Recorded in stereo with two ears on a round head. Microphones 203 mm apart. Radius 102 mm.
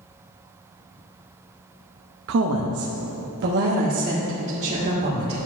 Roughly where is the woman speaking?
Right.